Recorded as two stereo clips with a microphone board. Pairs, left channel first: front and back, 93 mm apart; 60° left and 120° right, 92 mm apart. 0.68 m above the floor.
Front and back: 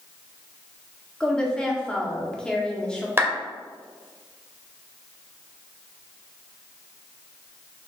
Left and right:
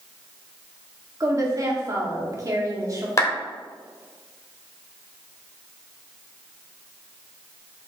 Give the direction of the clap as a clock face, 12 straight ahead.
8 o'clock.